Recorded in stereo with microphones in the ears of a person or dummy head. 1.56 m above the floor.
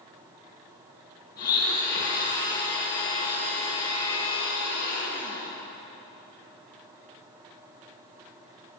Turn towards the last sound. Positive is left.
turn(degrees=50)  # may be behind; listen again after turning